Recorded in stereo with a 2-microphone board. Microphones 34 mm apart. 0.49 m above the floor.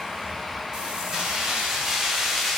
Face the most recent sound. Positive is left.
turn(degrees=5)  # may be behind; listen again after turning